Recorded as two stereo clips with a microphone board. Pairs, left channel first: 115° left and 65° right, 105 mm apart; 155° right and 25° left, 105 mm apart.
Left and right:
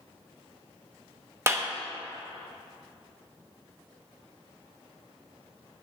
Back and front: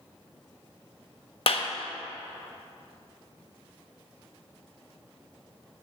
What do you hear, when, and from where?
1.5 s a clap: 130° right, 1.1 m